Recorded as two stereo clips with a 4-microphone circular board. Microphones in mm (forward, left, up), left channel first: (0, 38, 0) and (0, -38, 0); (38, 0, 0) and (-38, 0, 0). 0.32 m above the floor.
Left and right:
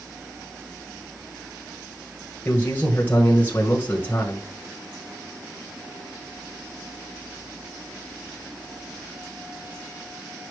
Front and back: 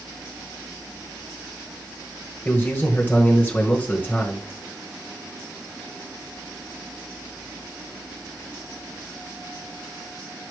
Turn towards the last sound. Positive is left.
turn(degrees=45)